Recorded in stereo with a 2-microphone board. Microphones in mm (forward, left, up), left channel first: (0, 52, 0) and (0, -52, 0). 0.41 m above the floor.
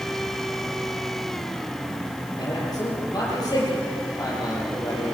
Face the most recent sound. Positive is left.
turn(degrees=40)  # may be behind; listen again after turning